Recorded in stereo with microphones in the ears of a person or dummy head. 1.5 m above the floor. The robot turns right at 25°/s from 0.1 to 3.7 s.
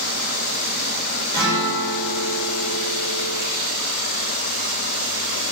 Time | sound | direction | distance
1.3 | a guitar | 160° left | 3 m